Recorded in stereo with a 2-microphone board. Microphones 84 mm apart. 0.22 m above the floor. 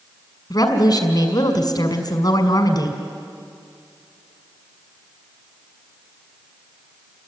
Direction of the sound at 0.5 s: 50° left (ahead or behind).